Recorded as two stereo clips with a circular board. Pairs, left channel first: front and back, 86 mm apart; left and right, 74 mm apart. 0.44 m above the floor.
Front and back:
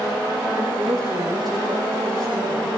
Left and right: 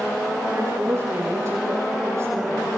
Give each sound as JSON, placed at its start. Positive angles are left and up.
{"t": 0.5, "sound": "a woman speaking", "azimuth_deg": -140, "distance_m": 9.5}